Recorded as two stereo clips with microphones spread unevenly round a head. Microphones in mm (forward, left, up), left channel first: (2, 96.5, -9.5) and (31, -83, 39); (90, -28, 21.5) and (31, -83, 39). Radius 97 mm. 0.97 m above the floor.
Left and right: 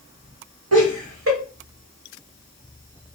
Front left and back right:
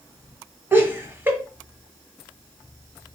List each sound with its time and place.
0.7 s laughter: 70° right, 1.4 m